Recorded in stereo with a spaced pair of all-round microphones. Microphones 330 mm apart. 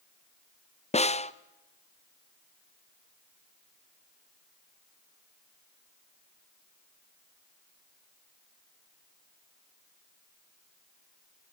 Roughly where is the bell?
No bell in this recording.